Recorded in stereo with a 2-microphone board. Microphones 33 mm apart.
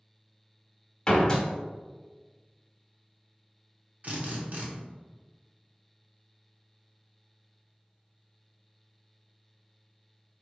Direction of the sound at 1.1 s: 20° left (ahead or behind).